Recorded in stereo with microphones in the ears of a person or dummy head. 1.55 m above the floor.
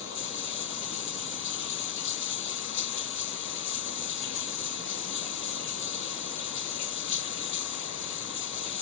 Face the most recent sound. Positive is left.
turn(degrees=70)  # may be behind; listen again after turning